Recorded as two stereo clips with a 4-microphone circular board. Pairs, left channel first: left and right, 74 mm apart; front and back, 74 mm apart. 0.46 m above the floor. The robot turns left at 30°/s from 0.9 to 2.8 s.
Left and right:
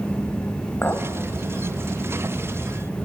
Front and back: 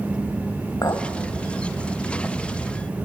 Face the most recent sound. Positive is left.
turn(degrees=-25)